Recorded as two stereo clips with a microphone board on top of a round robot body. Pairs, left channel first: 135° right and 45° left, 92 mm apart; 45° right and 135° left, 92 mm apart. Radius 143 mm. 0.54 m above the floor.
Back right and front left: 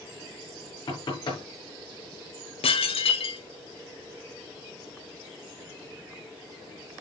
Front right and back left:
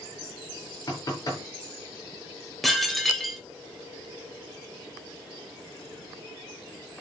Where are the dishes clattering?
135° right, 1.7 m.